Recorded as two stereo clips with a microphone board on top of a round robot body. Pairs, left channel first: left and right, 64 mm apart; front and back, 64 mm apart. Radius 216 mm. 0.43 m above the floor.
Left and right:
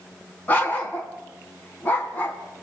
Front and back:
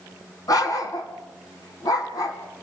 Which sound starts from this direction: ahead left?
A dog barking, at 0.5 s.